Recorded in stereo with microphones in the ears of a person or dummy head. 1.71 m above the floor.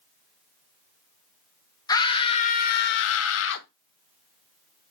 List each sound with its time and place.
1.9 s a scream: 20° left (ahead or behind), 1.1 m; by 3.7 s 65° left (ahead or behind), 0.8 m